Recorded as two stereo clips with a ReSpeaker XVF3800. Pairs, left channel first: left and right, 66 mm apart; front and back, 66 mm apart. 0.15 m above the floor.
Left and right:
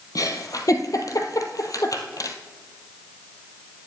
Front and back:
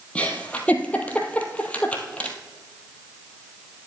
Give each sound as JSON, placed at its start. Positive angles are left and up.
{"t": 0.1, "sound": "a giggle", "azimuth_deg": 70, "distance_m": 1.4}